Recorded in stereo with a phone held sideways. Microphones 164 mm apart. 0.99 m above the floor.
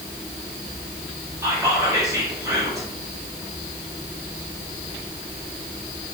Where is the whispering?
20° right (ahead or behind), 1.5 m.